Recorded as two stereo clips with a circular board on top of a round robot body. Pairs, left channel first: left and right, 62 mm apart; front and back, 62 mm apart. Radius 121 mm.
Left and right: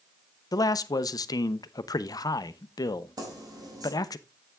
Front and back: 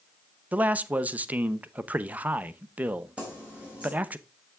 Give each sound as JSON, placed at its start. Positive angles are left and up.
{"t": 0.5, "sound": "a man speaking", "azimuth_deg": 110, "distance_m": 0.6}
{"t": 3.2, "sound": "keys jangling", "azimuth_deg": -110, "distance_m": 4.5}